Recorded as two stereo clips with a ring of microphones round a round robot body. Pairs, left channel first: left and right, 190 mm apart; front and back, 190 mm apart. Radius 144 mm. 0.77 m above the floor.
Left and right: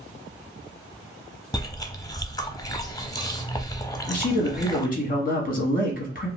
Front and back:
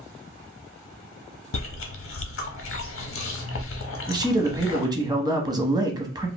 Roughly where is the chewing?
Ahead.